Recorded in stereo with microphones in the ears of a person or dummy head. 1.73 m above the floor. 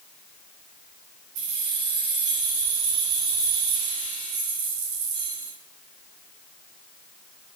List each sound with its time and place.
1.4 s keys jangling: 80° right, 4.5 m